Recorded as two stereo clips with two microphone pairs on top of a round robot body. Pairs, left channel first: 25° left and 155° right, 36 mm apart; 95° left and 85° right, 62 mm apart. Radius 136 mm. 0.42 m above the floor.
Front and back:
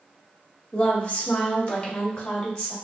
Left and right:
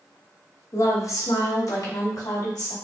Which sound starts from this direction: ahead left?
A woman speaking, at 0.7 s.